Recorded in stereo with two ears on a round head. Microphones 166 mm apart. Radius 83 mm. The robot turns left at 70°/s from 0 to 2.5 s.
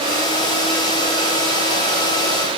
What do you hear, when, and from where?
Only background noise.